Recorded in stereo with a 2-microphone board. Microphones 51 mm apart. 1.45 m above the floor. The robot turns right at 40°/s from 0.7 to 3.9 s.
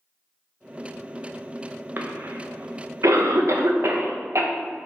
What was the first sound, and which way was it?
A cough, 40° right (ahead or behind).